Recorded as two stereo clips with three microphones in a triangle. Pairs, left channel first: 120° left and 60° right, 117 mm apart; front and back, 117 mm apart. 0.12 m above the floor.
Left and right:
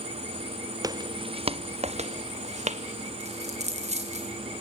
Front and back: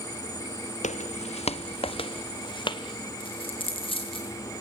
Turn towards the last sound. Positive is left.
turn(degrees=-40)